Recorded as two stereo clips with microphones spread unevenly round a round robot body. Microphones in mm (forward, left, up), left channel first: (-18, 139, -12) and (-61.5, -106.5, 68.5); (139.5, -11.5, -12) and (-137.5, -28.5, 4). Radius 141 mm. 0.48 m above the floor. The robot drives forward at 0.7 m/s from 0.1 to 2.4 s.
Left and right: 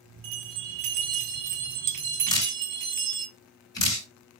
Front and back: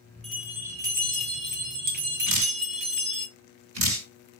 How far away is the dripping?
About 4 m.